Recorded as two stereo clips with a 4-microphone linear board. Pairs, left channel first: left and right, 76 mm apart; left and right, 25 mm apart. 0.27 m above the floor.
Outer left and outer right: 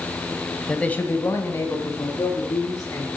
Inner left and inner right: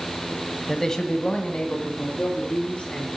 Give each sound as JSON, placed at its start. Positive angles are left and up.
{"t": 0.7, "sound": "a man speaking", "side_deg": 10, "distance_m": 0.9}